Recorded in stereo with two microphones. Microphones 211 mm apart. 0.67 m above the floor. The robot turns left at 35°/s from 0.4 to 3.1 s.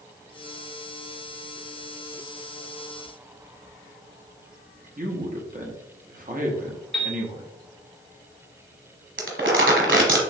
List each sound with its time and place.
5.0 s a man speaking: 40° right (ahead or behind), 1.0 m
6.9 s a piano: centre (ahead or behind), 2.0 m
9.2 s crumpling: 60° right (ahead or behind), 1.2 m